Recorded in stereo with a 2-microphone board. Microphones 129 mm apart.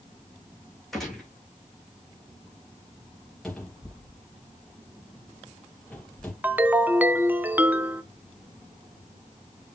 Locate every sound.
0.9 s a gunshot: centre (ahead or behind), 4 m
3.4 s a cupboard door: 5° left (ahead or behind), 4 m
6.4 s a ringtone: 10° right (ahead or behind), 0.6 m